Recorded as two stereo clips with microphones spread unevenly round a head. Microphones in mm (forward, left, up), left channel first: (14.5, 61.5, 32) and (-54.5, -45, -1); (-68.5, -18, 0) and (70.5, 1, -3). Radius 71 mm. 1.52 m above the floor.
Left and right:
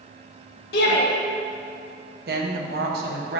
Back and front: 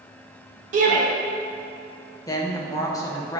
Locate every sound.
0.7 s a shout: 50° left, 1.6 m
2.3 s a woman speaking: 105° right, 1.0 m